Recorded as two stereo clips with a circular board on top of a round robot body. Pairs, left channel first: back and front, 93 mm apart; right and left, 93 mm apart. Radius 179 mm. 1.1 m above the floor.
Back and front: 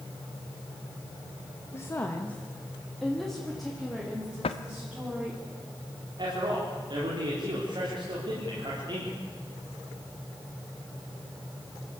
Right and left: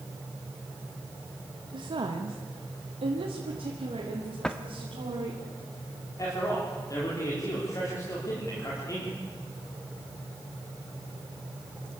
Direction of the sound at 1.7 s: 120° left.